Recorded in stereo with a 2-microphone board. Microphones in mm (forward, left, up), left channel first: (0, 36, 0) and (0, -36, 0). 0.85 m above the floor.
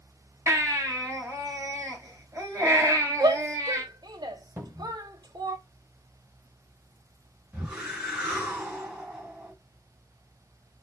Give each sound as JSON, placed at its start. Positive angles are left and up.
{"t": 0.5, "sound": "a baby crying", "side_deg": -45, "distance_m": 4.5}
{"t": 3.2, "sound": "a shout", "side_deg": -75, "distance_m": 1.3}
{"t": 4.6, "sound": "a cupboard door", "side_deg": -35, "distance_m": 2.0}
{"t": 7.5, "sound": "a whoosh", "side_deg": -15, "distance_m": 3.0}